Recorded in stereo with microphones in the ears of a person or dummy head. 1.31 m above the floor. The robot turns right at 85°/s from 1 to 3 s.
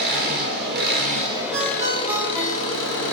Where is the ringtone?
60° right, 0.7 m; by 3.0 s 65° left, 0.7 m.